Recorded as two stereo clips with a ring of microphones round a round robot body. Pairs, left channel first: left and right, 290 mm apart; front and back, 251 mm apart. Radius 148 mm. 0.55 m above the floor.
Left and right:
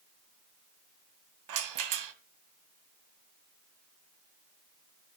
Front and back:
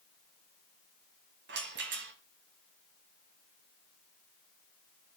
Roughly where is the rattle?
Behind right.